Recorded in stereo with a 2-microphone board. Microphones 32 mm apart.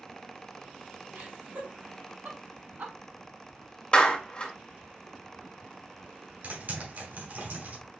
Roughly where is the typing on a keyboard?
Right.